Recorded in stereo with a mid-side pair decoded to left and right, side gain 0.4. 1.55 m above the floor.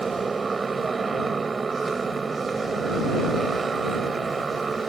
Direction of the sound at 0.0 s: 35° right.